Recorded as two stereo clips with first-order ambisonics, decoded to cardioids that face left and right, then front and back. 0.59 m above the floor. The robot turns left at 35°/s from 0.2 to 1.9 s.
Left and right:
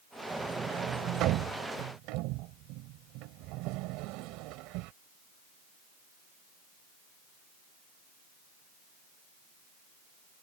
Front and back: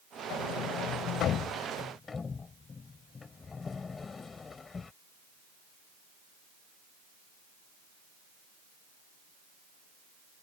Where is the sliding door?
15° right; by 4.9 s 70° right.